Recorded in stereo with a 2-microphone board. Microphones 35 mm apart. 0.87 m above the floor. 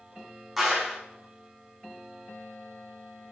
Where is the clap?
Centre (ahead or behind), 3.5 m.